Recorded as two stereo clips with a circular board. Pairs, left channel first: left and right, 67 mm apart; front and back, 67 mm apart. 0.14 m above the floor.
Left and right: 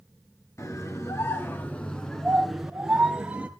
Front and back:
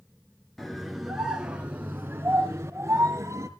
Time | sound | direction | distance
0.6 | a scream | 85° left | 1.6 m